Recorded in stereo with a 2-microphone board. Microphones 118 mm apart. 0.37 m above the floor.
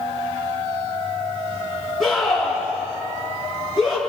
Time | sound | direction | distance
2.0 | a scream | centre (ahead or behind) | 6 m